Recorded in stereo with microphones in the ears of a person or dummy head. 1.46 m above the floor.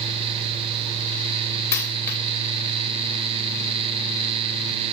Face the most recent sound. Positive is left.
turn(degrees=15)  # may be behind; listen again after turning